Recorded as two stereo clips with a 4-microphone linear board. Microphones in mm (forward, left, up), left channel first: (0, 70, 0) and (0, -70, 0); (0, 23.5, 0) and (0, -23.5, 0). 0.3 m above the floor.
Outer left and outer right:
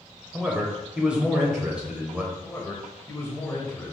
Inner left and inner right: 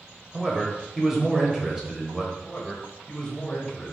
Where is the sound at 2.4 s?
20° left (ahead or behind), 1.1 m.